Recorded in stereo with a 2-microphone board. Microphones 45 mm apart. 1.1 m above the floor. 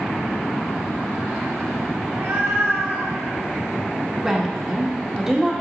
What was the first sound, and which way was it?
A cat meowing, 75° right (ahead or behind).